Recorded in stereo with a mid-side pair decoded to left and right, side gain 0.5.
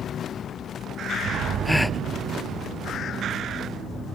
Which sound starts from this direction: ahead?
A gasp, at 1.6 s.